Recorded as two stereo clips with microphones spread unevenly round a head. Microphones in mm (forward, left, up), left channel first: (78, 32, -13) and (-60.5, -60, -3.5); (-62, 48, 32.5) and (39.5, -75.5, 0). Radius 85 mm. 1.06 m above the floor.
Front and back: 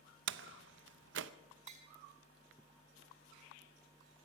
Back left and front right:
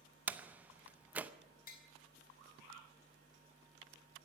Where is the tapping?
165° left, 2.5 m.